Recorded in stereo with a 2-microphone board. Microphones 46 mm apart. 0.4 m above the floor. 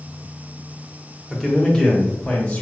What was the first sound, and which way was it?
A man speaking, centre (ahead or behind).